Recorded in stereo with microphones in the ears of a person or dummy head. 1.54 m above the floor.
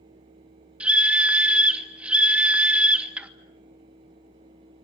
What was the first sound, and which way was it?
A scream, 10° right (ahead or behind).